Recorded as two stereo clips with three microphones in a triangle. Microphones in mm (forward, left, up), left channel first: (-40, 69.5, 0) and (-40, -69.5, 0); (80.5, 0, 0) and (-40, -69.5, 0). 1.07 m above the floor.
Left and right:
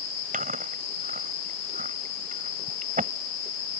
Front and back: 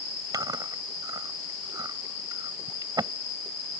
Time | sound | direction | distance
0.3 | chewing | 90° right | ?